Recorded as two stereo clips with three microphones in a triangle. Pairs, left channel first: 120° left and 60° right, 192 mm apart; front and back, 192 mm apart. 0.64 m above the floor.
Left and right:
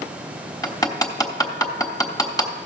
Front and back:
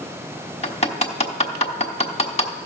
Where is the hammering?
50° left, 1.1 m.